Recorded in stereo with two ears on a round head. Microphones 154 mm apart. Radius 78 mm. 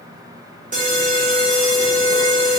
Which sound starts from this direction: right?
An alarm, at 0.7 s.